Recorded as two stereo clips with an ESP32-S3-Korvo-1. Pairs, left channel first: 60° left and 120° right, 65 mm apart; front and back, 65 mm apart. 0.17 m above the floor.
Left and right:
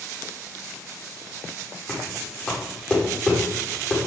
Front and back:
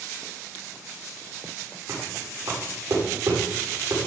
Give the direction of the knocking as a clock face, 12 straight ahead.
8 o'clock.